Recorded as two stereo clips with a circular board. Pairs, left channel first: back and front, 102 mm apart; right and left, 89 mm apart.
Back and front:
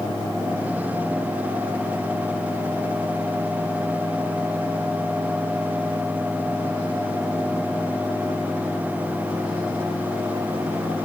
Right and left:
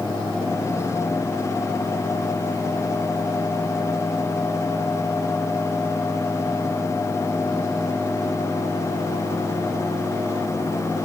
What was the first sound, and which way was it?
Only background noise.